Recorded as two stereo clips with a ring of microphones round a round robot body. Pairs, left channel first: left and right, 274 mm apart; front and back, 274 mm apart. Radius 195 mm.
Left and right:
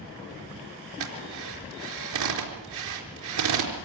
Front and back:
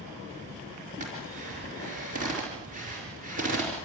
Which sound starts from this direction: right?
A drill, at 1.0 s.